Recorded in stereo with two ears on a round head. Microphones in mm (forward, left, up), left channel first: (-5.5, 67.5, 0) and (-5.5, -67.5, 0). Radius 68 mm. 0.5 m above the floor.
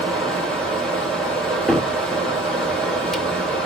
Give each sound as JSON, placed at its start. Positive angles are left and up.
{"t": 0.0, "sound": "running water", "side_deg": 5, "distance_m": 2.5}
{"t": 1.7, "sound": "a cupboard door", "side_deg": 0, "distance_m": 0.7}